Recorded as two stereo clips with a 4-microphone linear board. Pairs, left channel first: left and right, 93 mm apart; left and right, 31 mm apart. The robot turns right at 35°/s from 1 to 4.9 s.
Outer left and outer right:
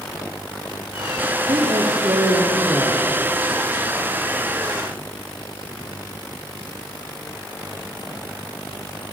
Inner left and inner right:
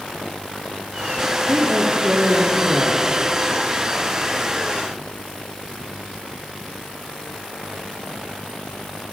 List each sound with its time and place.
1.5 s a woman speaking: 60° right, 4.5 m; by 3.0 s 5° right, 4.5 m